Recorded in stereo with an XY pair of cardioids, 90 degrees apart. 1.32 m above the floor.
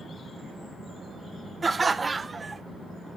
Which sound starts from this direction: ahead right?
Laughter, at 1.6 s.